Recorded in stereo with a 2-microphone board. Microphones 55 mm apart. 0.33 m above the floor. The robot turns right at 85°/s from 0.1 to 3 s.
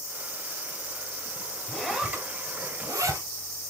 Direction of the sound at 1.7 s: 10° left (ahead or behind).